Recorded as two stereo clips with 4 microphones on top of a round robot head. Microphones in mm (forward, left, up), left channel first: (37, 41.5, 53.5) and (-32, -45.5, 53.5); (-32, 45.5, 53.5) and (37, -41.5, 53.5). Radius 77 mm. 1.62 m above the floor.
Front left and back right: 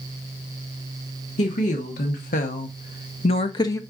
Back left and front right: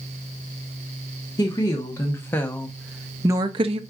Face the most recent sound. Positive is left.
turn(degrees=-15)